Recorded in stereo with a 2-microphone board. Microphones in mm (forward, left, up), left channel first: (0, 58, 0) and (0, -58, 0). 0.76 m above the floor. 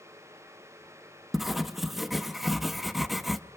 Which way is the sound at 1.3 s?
Centre (ahead or behind).